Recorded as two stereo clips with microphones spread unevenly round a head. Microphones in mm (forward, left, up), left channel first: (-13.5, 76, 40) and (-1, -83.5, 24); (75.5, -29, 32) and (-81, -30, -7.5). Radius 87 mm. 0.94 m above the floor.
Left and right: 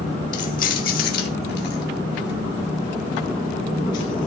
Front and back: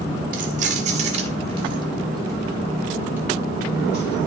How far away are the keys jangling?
About 2 m.